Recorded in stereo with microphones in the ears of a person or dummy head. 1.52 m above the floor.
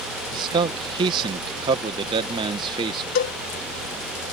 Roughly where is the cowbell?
Left.